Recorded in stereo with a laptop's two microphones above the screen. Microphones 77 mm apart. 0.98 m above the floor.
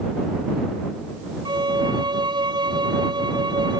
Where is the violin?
70° right (ahead or behind).